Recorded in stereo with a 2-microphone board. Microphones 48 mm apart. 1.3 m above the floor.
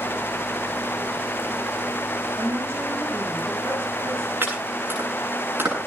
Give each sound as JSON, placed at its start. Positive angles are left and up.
{"t": 2.4, "sound": "a woman speaking", "side_deg": -55, "distance_m": 6.0}
{"t": 4.4, "sound": "chopping", "side_deg": -50, "distance_m": 9.0}